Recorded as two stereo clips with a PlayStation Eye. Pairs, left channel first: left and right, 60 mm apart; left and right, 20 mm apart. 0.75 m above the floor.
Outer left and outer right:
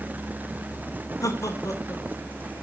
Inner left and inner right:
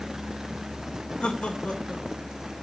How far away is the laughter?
About 3 m.